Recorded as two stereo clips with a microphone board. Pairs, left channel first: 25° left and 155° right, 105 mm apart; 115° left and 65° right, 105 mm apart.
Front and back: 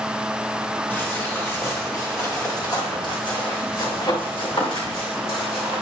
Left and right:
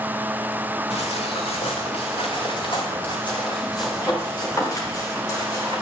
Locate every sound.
0.9 s footsteps: 95° left, 3.5 m; by 5.8 s 50° left, 6 m